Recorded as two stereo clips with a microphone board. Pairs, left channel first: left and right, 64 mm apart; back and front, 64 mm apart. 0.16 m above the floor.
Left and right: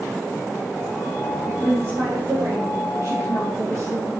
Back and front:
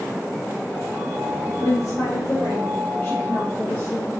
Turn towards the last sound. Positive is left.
turn(degrees=-120)